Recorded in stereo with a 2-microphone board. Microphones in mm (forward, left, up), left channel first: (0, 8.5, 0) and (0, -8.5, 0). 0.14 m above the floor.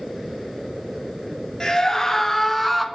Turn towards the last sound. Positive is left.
turn(degrees=-5)  # may be behind; listen again after turning